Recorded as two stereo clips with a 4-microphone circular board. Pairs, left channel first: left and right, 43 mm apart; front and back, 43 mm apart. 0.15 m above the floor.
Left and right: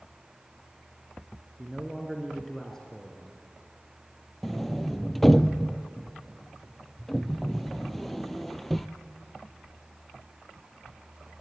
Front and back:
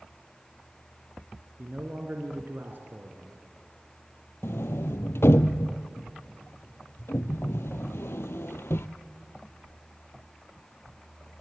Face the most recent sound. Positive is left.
turn(degrees=5)